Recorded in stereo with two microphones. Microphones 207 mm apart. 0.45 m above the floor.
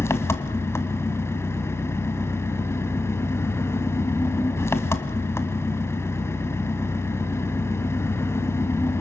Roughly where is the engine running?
Centre.